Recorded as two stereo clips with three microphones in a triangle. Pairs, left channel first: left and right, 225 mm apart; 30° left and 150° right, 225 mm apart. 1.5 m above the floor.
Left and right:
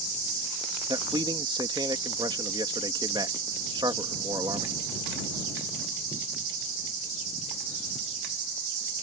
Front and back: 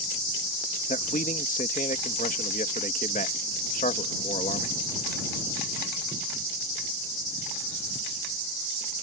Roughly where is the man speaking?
Ahead.